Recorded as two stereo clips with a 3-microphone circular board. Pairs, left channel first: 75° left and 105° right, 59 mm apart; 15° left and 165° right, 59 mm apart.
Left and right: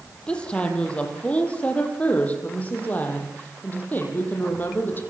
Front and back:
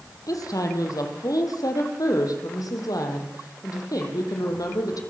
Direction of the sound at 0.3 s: Straight ahead.